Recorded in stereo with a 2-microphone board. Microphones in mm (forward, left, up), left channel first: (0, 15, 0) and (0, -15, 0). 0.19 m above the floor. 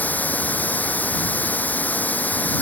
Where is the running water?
75° left (ahead or behind).